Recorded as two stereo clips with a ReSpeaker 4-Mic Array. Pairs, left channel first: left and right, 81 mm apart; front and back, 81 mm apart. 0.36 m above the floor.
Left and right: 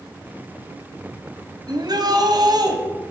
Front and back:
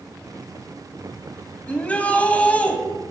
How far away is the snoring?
I don't hear snoring.